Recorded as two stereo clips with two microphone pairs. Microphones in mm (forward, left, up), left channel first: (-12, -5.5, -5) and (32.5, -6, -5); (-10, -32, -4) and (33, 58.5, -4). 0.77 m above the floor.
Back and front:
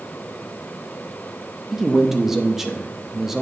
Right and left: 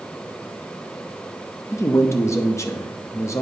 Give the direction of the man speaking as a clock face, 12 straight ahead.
3 o'clock.